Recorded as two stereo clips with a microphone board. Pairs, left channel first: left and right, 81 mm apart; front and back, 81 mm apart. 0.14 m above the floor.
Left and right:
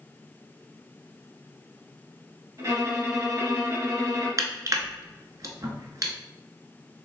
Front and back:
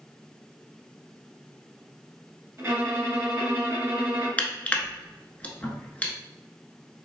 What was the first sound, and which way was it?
A violin, 120° right.